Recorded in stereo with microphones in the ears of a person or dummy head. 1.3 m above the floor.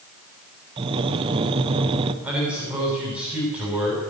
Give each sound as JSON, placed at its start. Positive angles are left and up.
{"t": 0.8, "sound": "breathing", "side_deg": -25, "distance_m": 0.9}
{"t": 2.2, "sound": "a man speaking", "side_deg": -10, "distance_m": 7.0}